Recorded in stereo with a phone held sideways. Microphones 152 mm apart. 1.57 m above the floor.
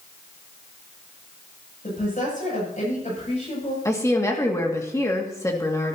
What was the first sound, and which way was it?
A woman speaking, 60° left (ahead or behind).